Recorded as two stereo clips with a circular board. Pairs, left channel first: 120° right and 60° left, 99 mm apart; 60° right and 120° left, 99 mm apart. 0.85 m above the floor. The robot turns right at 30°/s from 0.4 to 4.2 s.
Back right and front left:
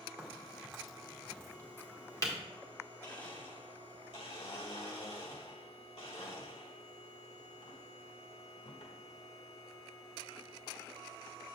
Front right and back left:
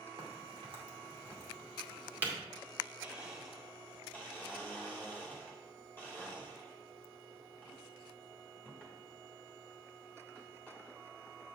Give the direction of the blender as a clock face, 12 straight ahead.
6 o'clock.